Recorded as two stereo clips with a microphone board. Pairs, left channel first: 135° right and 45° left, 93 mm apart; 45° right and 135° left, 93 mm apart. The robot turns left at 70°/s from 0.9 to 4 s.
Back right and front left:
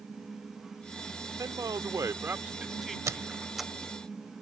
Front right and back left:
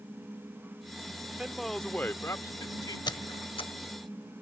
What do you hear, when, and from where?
1.4 s a man speaking: 60° left; by 3.0 s 50° right
3.1 s a squeak: 10° right; by 3.7 s 55° right